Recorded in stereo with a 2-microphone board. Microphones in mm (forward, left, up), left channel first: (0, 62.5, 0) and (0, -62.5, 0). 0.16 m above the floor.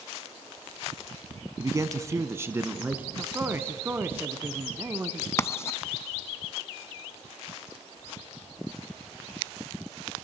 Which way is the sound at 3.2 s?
20° right (ahead or behind).